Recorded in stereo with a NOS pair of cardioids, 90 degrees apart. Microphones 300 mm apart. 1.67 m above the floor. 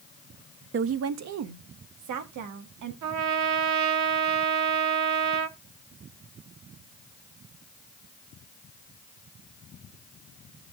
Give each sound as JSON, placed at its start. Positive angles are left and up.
{"t": 0.7, "sound": "a woman speaking", "azimuth_deg": -40, "distance_m": 0.7}
{"t": 3.0, "sound": "a trumpet", "azimuth_deg": -70, "distance_m": 1.2}